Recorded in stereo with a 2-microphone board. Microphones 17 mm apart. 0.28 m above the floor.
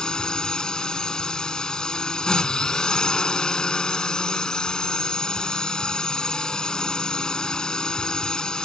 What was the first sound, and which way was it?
A drone, 50° left (ahead or behind).